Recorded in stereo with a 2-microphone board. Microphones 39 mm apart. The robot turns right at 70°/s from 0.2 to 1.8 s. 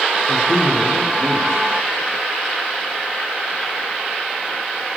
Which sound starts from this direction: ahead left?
A man speaking, at 0.3 s.